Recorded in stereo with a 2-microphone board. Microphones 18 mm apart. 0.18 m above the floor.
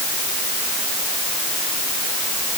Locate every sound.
Only background noise.